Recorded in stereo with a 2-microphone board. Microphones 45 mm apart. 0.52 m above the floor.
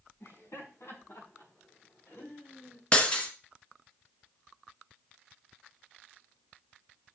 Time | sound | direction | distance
0.2 | laughter | 75° left (ahead or behind) | 4.5 m
2.9 | breaking glass | 25° left (ahead or behind) | 1.6 m